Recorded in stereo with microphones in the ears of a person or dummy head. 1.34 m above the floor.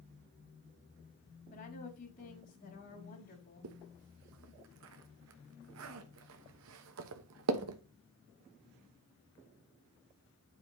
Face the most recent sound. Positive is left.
turn(degrees=-75)  # may be behind; listen again after turning